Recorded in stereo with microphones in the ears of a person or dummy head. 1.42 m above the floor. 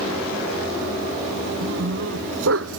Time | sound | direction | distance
1.6 | a dog barking | 80° right | ?